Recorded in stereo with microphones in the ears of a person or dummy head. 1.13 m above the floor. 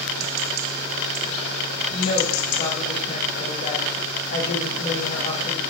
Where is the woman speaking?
30° left (ahead or behind), 1.5 m.